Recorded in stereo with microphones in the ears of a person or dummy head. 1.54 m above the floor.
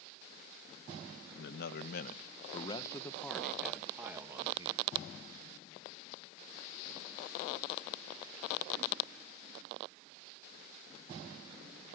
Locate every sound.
1.4 s a man speaking: 75° left (ahead or behind), 1.5 m; by 4.9 s 20° right (ahead or behind), 2.5 m